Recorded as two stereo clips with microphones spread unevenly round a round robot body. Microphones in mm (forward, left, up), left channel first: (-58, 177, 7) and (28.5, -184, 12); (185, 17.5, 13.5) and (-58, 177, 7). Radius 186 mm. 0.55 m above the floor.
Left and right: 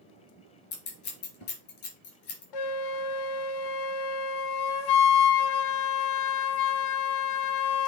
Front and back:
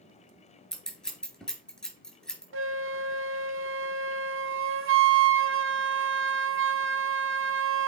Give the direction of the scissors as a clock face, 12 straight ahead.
10 o'clock.